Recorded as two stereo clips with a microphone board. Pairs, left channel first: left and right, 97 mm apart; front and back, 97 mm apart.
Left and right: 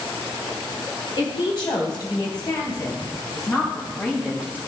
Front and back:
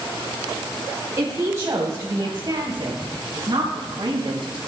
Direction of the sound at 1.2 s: 115° left.